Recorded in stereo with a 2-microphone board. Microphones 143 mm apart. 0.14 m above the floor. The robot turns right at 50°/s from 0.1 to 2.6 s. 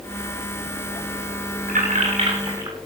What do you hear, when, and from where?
1.7 s keys jangling: 70° right (ahead or behind), 8 m; by 2.8 s 25° right (ahead or behind), 8 m